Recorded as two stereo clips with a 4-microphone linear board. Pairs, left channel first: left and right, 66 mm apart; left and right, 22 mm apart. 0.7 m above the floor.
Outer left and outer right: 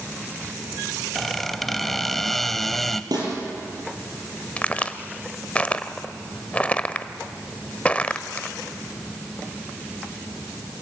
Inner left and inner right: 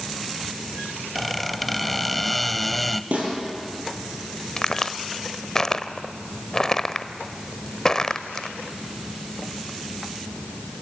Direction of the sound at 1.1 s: 5° left (ahead or behind).